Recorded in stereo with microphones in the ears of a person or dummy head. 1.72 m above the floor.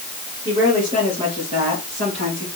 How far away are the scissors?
I don't hear scissors.